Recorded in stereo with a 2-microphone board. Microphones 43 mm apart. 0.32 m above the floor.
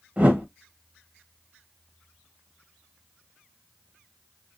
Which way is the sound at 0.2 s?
30° right (ahead or behind).